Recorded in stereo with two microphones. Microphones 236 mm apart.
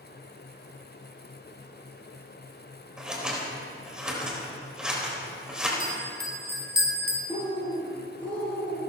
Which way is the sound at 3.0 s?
5° right (ahead or behind).